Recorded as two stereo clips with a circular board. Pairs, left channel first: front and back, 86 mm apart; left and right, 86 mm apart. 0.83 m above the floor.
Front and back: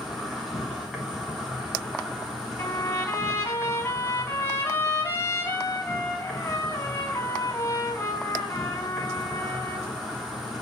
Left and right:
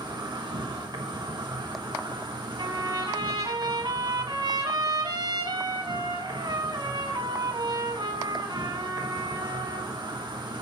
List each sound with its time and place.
0.0 s an insect: 95° right, 3.5 m
2.6 s a trumpet: 65° right, 4.5 m